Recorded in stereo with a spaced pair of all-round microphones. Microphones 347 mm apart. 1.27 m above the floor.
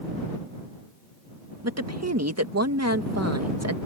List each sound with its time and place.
1.6 s a woman speaking: 50° right (ahead or behind)